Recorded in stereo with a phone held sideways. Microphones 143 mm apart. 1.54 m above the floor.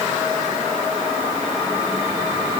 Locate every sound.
Only background noise.